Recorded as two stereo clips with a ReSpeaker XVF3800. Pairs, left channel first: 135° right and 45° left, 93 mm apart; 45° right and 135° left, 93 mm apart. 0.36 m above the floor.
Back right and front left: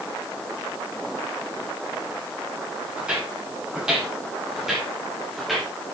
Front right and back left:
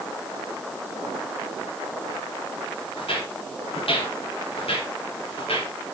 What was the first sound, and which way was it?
Footsteps, 35° right.